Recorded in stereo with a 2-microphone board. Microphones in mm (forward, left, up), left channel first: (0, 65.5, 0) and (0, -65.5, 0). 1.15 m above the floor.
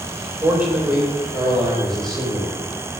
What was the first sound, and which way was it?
A man speaking, 10° right (ahead or behind).